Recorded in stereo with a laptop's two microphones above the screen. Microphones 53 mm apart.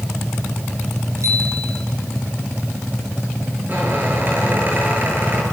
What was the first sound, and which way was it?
A bicycle bell, 60° right (ahead or behind).